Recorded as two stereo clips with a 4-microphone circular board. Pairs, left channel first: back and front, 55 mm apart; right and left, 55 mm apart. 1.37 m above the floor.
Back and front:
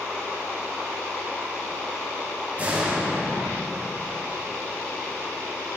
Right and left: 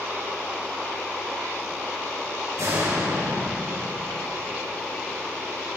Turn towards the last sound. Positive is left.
turn(degrees=65)